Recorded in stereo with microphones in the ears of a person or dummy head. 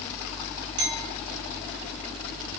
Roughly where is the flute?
I don't hear a flute.